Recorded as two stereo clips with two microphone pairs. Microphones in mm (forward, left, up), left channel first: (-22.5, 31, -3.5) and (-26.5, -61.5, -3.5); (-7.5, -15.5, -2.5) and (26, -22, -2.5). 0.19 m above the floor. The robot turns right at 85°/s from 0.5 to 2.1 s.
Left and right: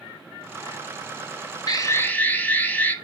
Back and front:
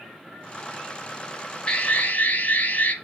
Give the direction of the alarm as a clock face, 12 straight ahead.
8 o'clock.